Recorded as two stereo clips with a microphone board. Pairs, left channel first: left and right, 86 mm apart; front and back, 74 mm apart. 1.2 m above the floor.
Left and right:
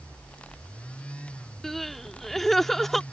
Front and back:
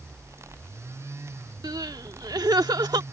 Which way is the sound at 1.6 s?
175° left.